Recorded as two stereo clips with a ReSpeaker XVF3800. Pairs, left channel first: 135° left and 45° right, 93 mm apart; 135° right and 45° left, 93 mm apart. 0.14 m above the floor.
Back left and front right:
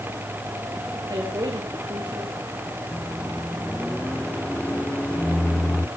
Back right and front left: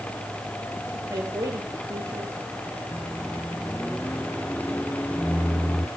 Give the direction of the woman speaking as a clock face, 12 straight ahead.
12 o'clock.